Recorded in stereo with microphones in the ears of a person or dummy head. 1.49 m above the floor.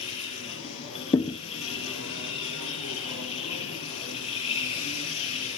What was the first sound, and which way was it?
A machine running, 35° left (ahead or behind).